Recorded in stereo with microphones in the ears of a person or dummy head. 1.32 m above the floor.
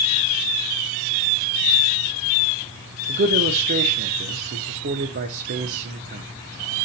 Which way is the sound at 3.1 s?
55° right (ahead or behind).